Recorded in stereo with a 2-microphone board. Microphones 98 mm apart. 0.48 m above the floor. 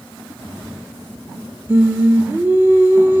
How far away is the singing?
About 1.1 m.